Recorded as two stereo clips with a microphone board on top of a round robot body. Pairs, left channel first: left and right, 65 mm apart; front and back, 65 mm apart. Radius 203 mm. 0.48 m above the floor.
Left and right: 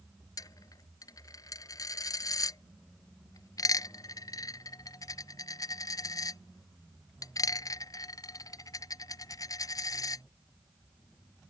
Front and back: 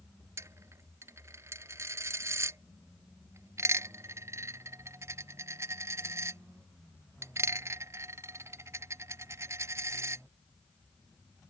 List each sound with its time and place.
0.4 s a dropped coin: 130° left